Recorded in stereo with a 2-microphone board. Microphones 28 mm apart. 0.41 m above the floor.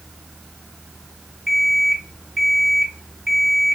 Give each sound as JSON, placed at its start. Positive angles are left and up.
{"t": 1.5, "sound": "an alarm clock", "side_deg": -10, "distance_m": 1.8}